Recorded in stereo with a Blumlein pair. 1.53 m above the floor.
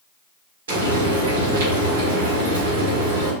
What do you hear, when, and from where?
0.7 s frying: 60° right, 1.3 m